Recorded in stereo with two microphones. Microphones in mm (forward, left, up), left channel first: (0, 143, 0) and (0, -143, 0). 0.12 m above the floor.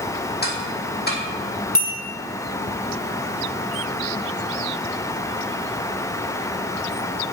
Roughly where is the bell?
Left.